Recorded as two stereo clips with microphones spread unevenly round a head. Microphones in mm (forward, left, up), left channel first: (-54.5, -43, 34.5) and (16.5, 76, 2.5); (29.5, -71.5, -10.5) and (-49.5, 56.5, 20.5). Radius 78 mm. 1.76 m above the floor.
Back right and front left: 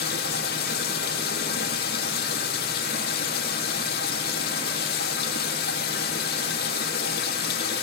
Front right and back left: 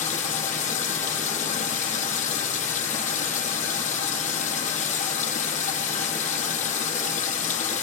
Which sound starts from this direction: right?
Running water, at 0.0 s.